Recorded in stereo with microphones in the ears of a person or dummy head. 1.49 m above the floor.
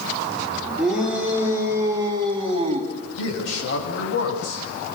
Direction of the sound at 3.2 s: 80° left.